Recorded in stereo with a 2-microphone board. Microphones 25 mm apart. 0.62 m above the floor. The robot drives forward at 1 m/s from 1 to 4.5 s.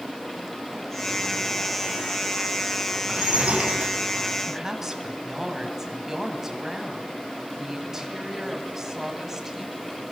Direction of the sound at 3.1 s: 45° right (ahead or behind).